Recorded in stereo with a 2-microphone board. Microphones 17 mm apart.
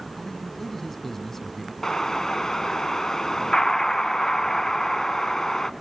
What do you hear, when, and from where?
0.2 s a man speaking: 15° left (ahead or behind), 1.0 m
1.8 s an explosion: 35° left (ahead or behind), 0.6 m